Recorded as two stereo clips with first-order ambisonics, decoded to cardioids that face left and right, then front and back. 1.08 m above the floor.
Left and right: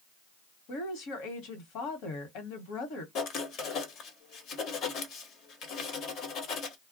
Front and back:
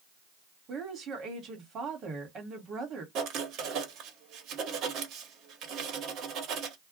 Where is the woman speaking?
120° left, 1.1 m.